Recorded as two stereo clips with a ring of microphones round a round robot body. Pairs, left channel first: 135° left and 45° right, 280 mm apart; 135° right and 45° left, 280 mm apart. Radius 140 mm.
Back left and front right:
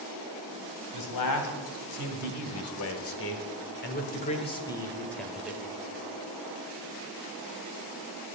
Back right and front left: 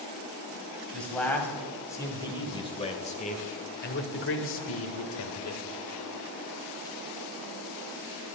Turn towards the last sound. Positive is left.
turn(degrees=-125)